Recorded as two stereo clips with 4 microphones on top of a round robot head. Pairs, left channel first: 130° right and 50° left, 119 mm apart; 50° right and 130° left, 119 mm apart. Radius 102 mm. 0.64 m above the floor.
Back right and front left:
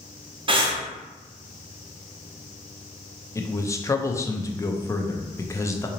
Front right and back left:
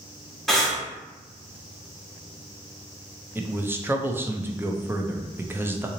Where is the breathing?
40° left, 1.1 m.